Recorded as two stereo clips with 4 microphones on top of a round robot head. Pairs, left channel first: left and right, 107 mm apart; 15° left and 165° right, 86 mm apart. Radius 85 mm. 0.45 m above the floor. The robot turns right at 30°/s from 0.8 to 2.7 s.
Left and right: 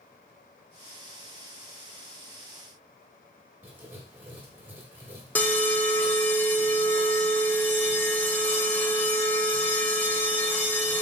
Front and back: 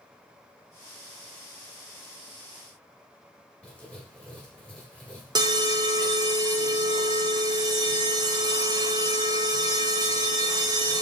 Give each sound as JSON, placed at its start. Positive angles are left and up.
{"t": 3.6, "sound": "writing", "azimuth_deg": -45, "distance_m": 1.2}
{"t": 5.3, "sound": "an alarm", "azimuth_deg": 160, "distance_m": 0.6}